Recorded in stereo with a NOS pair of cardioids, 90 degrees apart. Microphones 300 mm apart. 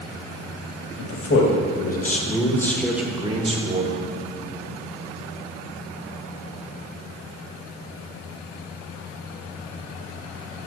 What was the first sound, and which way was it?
A man speaking, 50° left.